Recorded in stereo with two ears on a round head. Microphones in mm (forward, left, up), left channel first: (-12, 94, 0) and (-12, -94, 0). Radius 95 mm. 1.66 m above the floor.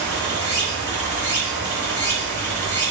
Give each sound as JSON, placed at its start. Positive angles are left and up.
{"t": 0.0, "sound": "running water", "side_deg": 15, "distance_m": 1.3}